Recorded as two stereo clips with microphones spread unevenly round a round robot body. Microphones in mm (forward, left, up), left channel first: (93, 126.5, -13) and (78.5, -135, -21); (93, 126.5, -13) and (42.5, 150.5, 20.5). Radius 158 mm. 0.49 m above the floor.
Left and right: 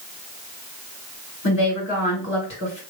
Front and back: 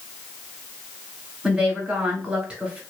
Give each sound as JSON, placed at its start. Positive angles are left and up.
{"t": 1.4, "sound": "a woman speaking", "azimuth_deg": 60, "distance_m": 1.9}